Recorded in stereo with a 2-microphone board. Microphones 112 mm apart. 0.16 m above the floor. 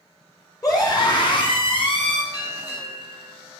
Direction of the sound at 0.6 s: 35° left (ahead or behind).